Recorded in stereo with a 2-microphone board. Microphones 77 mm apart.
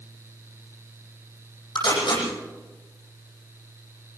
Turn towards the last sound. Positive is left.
turn(degrees=75)  # may be behind; listen again after turning